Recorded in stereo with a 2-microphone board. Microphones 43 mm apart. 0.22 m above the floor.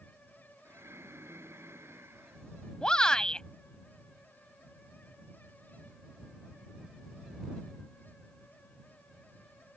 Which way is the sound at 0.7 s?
85° right.